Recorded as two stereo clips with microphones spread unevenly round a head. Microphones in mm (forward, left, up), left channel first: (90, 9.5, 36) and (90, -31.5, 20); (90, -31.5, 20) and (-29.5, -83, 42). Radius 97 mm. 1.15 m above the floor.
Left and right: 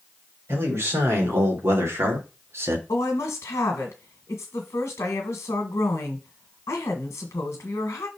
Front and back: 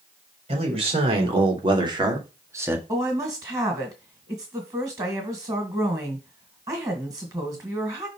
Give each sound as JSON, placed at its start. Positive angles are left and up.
{"t": 0.5, "sound": "a man speaking", "azimuth_deg": -115, "distance_m": 3.5}
{"t": 2.9, "sound": "a woman speaking", "azimuth_deg": 130, "distance_m": 1.3}